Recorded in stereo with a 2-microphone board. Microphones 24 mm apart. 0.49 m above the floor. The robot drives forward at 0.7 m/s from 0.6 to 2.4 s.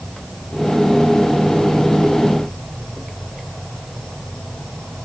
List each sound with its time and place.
0.0 s an insect: 25° left (ahead or behind), 7.5 m; by 5.0 s 30° left (ahead or behind), 6 m